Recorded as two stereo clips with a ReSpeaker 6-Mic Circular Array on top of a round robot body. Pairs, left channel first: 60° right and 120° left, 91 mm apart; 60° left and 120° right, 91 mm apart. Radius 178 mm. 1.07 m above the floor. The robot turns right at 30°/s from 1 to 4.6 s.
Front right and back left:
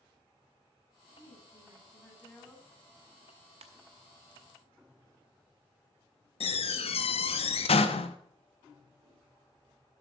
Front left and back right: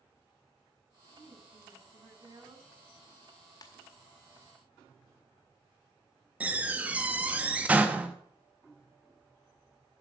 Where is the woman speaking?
Straight behind, 9 m; by 2.7 s 135° right, 9 m.